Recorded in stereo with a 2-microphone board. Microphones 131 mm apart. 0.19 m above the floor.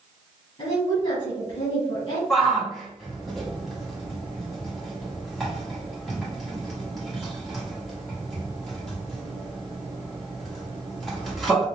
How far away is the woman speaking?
About 2.0 m.